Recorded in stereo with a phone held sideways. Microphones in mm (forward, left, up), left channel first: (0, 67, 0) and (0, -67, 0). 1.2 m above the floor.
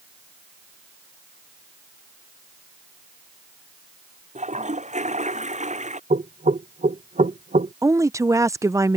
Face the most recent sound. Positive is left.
turn(degrees=-20)  # may be behind; listen again after turning